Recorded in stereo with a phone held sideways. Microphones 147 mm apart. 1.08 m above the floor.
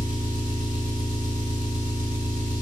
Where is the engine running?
80° right, 3 m.